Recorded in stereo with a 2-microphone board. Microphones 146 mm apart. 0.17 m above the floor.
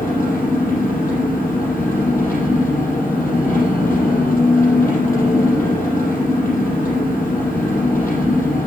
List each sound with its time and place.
0.0 s an engine running: 75° left (ahead or behind), 5.5 m